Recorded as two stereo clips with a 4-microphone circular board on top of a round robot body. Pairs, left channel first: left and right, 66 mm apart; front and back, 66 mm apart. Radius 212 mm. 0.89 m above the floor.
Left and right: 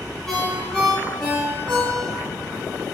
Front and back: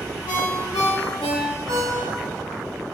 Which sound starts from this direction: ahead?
A ringtone, at 0.3 s.